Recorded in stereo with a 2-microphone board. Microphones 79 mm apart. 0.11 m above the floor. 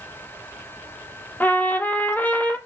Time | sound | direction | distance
1.4 | a trumpet | 25° left (ahead or behind) | 0.8 m